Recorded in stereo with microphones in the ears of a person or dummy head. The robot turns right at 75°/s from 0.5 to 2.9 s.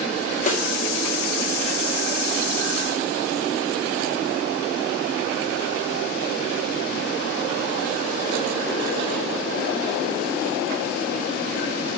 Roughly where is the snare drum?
Left.